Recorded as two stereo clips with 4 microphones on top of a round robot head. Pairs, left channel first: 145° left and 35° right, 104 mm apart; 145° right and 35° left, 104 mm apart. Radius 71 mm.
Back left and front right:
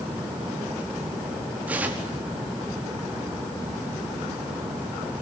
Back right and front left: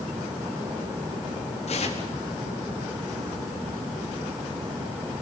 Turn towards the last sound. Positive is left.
turn(degrees=-115)